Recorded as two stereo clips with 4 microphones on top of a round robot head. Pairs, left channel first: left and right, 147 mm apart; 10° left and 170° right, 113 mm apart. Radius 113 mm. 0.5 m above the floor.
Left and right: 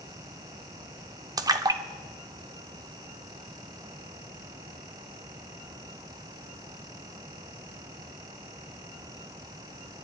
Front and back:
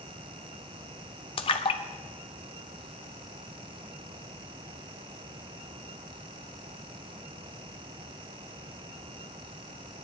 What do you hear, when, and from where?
1.4 s a splash: 25° right, 0.8 m